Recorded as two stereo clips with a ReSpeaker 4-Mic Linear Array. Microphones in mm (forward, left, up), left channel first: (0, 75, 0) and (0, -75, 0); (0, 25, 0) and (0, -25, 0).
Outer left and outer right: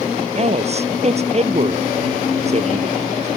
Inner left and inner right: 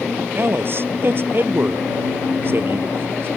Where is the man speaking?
45° right (ahead or behind).